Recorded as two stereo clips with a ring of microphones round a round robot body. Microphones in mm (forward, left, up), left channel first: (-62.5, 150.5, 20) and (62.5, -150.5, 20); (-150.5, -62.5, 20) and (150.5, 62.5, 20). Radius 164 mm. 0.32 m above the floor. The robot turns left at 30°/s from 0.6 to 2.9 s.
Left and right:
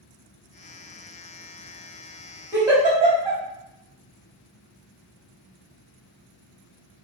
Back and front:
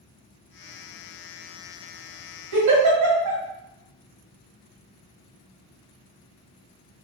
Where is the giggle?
15° left, 1.9 m; by 3.4 s 5° left, 1.9 m.